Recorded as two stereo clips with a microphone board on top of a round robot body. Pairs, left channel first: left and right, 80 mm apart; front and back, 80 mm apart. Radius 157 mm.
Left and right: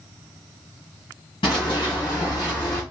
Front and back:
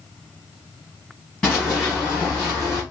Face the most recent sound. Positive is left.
turn(degrees=155)